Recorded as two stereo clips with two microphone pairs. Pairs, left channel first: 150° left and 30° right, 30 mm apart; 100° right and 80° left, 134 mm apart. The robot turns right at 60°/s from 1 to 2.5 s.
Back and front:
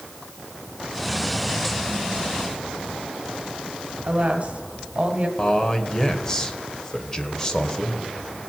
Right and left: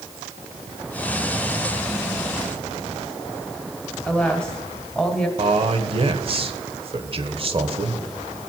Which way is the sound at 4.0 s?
20° right.